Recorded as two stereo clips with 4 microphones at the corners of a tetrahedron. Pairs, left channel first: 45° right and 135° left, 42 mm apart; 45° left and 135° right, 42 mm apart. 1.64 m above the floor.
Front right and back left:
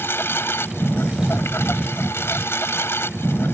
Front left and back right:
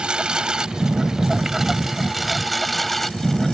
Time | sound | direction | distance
0.0 | a lawn mower | 65° right | ?